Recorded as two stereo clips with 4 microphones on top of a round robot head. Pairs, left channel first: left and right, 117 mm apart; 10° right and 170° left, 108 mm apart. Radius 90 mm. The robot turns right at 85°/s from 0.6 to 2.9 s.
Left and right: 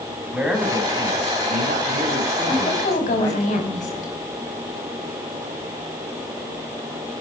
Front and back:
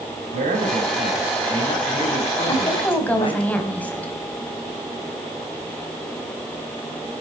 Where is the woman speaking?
30° left, 4.5 m; by 4.1 s 65° left, 4.5 m.